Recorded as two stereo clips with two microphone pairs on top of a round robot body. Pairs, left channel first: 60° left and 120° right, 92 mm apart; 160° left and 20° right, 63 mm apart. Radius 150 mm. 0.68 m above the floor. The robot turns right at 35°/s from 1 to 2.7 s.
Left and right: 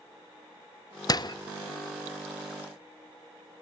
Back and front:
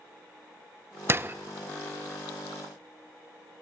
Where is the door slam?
25° left, 0.9 m; by 1.4 s 30° left, 0.9 m.